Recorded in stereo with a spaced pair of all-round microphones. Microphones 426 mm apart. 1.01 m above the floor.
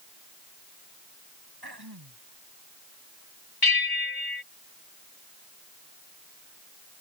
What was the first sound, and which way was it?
Throat clearing, 60° right (ahead or behind).